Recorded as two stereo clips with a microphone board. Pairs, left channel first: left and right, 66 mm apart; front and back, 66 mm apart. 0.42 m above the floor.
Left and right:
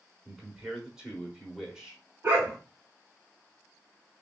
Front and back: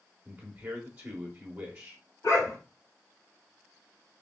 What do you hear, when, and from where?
0.2 s a man speaking: 155° right, 0.8 m
2.2 s a dog barking: 30° right, 1.6 m